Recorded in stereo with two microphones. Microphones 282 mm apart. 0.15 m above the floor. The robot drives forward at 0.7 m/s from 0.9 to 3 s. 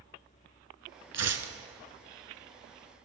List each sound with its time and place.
1.1 s tearing paper: 65° right (ahead or behind), 0.5 m; by 1.5 s 55° right (ahead or behind), 0.6 m